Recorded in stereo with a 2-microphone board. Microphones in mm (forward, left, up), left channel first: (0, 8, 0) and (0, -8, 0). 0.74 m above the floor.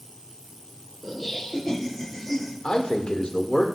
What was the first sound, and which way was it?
Laughter, 5° left (ahead or behind).